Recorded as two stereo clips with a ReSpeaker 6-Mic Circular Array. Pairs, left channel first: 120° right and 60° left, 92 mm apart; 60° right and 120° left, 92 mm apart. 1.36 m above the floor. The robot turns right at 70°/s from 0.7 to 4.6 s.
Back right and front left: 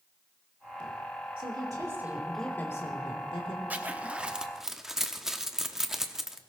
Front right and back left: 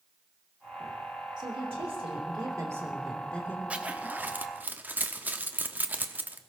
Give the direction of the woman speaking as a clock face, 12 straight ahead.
9 o'clock.